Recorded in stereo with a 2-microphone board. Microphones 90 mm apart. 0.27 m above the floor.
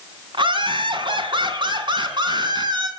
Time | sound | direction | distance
0.3 | laughter | 60° right (ahead or behind) | 3 m